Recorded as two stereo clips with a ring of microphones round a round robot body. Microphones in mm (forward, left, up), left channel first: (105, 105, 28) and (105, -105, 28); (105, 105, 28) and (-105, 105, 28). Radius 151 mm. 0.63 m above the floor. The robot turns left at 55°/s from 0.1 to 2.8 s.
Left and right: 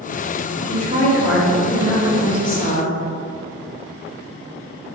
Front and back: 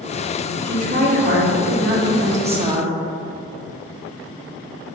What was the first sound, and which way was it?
A woman speaking, 130° right.